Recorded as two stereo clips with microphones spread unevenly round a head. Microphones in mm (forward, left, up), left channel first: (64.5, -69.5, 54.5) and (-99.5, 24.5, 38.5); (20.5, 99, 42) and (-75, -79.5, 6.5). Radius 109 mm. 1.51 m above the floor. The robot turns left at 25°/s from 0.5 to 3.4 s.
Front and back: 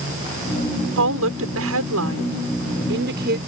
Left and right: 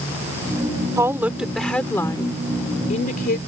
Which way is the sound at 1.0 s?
165° left.